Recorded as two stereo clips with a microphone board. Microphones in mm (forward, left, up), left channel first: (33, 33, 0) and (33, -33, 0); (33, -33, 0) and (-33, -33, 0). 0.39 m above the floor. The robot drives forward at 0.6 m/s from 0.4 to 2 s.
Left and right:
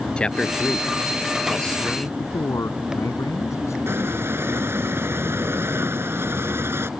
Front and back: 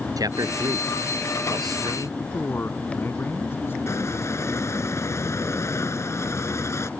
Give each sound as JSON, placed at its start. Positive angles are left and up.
{"t": 0.2, "sound": "a man speaking", "azimuth_deg": 165}
{"t": 2.2, "sound": "a man speaking", "azimuth_deg": 55}
{"t": 3.9, "sound": "a squeak", "azimuth_deg": -40}